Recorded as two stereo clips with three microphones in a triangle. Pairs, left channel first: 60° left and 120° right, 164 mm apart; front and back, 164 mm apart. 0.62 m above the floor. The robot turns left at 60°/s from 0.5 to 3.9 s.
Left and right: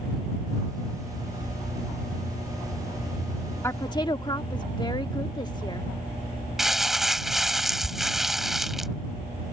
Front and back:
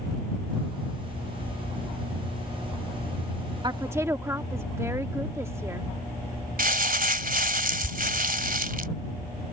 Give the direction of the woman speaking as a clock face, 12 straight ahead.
8 o'clock.